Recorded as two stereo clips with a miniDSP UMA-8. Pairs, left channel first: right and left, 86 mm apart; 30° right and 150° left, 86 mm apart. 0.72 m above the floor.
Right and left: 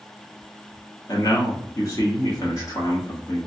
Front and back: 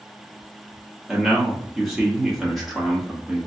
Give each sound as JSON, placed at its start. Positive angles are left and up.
{"t": 1.1, "sound": "a man speaking", "azimuth_deg": -120, "distance_m": 1.2}